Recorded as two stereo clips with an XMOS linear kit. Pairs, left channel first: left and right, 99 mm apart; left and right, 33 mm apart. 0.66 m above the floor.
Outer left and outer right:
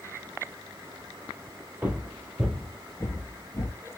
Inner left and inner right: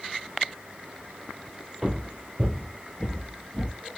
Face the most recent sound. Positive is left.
turn(degrees=45)  # may be behind; listen again after turning